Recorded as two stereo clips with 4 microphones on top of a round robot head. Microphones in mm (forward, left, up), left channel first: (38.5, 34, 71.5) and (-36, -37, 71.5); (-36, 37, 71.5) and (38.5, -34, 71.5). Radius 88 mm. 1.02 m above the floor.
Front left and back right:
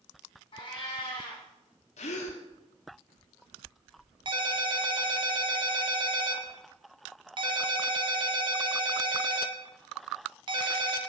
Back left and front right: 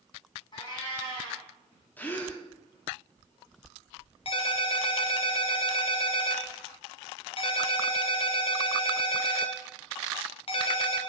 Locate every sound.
0.5 s a cat meowing: 90° left, 3.5 m
2.0 s a gasp: 60° left, 1.2 m
4.2 s a ringtone: 175° left, 1.1 m